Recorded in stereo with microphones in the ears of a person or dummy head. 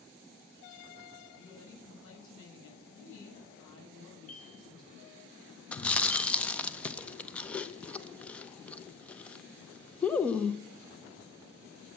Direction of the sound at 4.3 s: 45° left (ahead or behind).